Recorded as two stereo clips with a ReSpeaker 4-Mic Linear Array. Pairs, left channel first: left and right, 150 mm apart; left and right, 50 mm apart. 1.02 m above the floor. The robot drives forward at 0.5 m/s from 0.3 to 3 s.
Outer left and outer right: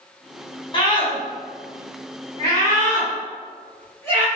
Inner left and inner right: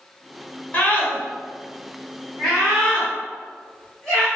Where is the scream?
35° left (ahead or behind), 0.9 m; by 4.3 s 15° left (ahead or behind), 1.8 m.